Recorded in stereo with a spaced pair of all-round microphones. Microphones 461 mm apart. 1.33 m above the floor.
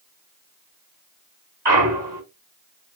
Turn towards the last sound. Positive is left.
turn(degrees=-55)  # may be behind; listen again after turning